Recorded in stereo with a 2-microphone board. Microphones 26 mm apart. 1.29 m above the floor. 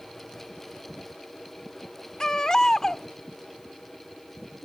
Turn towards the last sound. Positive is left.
turn(degrees=25)  # may be behind; listen again after turning